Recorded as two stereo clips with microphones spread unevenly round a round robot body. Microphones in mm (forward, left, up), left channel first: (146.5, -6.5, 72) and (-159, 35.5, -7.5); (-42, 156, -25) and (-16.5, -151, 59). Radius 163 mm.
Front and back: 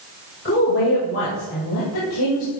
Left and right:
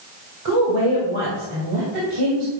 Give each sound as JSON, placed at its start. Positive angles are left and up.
{"t": 0.5, "sound": "a woman speaking", "azimuth_deg": -70, "distance_m": 2.5}